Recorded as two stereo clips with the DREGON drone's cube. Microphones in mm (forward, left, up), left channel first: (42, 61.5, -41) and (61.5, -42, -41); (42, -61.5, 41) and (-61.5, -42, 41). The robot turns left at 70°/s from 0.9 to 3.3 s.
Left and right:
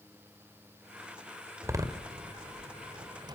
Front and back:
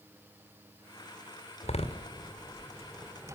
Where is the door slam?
10° right, 2 m; by 3.4 s 130° right, 2 m.